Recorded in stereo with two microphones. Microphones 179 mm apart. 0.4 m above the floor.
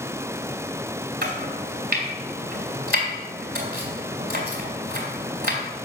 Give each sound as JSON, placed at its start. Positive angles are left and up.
{"t": 1.2, "sound": "chopping", "side_deg": -65, "distance_m": 3.0}